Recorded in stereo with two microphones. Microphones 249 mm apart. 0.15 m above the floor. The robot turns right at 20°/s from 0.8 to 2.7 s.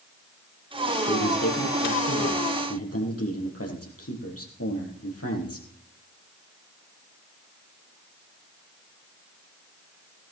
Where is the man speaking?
70° left, 4.5 m; by 5.7 s 105° left, 4.5 m.